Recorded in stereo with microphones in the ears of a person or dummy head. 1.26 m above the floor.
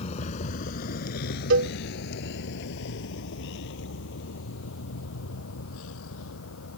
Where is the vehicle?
35° left (ahead or behind); by 6.8 s 80° left.